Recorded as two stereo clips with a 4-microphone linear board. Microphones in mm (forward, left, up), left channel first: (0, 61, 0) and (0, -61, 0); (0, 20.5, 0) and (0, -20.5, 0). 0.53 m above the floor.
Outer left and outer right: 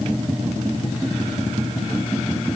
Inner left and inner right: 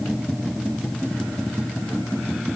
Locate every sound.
Only background noise.